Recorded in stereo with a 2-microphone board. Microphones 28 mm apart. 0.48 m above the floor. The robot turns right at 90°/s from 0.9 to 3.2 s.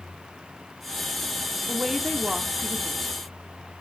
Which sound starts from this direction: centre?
A woman speaking, at 1.7 s.